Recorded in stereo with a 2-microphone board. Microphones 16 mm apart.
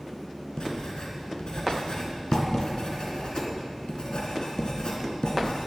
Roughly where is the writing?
Left.